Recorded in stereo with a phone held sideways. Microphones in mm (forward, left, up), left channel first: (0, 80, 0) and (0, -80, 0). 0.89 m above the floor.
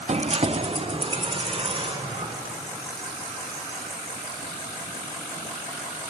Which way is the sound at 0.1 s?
45° right (ahead or behind).